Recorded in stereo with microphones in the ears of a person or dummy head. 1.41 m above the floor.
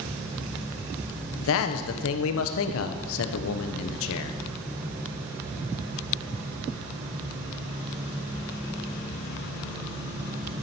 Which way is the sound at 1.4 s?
70° left (ahead or behind).